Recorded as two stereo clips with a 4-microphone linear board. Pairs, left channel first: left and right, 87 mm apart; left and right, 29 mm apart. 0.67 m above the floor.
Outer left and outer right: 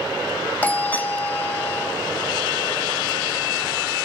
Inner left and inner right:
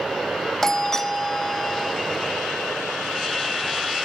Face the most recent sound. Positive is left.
turn(degrees=15)  # may be behind; listen again after turning